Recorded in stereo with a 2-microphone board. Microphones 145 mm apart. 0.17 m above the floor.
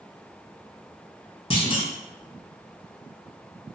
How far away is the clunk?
About 0.6 m.